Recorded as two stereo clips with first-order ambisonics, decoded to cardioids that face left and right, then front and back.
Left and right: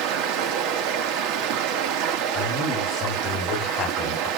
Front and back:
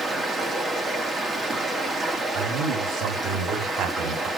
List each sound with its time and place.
0.0 s running water: 110° right, 1.5 m
2.3 s a man speaking: 155° left, 4.5 m